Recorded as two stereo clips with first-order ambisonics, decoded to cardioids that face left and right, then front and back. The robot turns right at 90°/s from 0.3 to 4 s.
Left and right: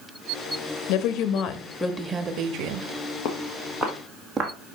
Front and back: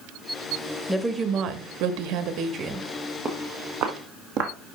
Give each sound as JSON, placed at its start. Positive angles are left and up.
{"t": 0.9, "sound": "a woman speaking", "azimuth_deg": 85, "distance_m": 1.0}
{"t": 3.2, "sound": "footsteps", "azimuth_deg": 105, "distance_m": 1.7}